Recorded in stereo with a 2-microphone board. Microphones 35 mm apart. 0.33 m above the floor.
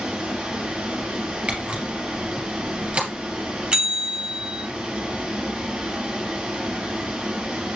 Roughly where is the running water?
Right.